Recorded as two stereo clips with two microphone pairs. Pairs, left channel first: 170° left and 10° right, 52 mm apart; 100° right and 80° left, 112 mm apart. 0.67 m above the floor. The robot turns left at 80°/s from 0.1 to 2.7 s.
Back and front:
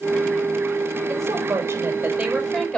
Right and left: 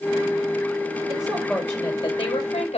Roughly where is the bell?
I don't hear a bell.